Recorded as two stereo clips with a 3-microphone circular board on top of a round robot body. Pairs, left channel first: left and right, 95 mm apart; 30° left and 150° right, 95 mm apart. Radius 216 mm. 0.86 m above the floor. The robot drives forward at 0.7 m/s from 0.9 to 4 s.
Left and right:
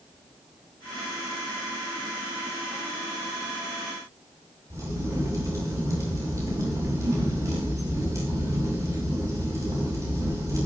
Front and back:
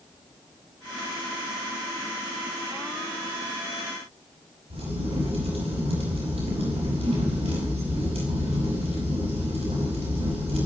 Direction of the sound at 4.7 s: 150° right.